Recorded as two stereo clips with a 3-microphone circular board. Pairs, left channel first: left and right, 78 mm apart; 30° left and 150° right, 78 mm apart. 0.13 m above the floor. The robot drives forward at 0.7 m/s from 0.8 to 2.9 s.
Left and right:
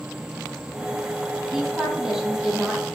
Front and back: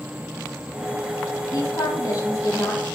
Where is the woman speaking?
5° right, 4.5 m.